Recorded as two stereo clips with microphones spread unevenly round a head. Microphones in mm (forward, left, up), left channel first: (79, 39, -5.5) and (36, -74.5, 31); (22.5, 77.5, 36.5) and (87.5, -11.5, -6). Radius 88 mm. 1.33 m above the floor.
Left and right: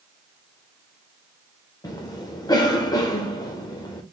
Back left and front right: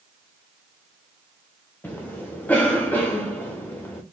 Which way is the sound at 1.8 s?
35° left.